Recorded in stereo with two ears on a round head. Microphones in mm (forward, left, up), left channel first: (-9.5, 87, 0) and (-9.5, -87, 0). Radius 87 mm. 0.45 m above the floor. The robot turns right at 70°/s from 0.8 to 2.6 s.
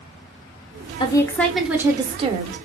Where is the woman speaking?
140° left, 1.0 m; by 2.6 s 105° right, 1.0 m.